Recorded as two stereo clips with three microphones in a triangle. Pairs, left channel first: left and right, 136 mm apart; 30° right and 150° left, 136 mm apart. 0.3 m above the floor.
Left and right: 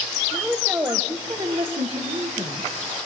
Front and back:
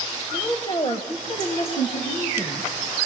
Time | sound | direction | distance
0.3 | a woman speaking | 5° left | 1.2 m